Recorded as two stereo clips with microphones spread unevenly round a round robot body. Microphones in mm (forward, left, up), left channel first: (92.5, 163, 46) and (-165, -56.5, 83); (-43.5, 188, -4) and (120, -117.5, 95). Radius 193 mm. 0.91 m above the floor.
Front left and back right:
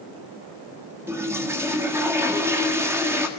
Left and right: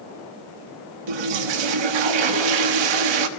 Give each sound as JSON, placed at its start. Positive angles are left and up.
{"t": 1.1, "sound": "a toilet flushing", "azimuth_deg": -55, "distance_m": 1.5}